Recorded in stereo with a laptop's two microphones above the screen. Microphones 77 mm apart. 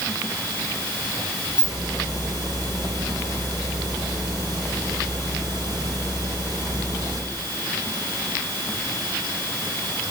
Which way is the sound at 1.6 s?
70° right (ahead or behind).